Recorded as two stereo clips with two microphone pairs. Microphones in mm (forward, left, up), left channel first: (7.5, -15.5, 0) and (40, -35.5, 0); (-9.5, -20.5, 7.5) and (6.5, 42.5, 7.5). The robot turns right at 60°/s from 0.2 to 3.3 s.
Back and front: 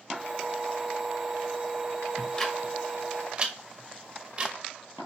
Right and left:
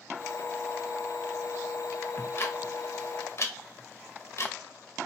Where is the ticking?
150° right, 0.9 m; by 4.5 s 80° right, 0.9 m.